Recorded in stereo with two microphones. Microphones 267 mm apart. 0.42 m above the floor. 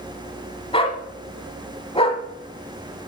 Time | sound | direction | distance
0.7 | a dog barking | 20° left (ahead or behind) | 1.0 m